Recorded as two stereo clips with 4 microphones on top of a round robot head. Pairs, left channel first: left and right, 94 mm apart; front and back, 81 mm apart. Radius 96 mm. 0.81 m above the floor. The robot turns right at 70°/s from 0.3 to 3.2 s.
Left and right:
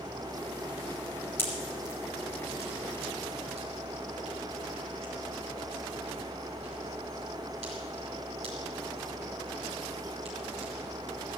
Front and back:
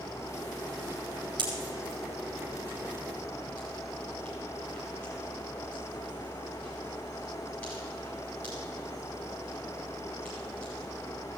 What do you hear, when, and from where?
1.4 s a pop: 155° left, 6 m; by 10.7 s 75° right, 6 m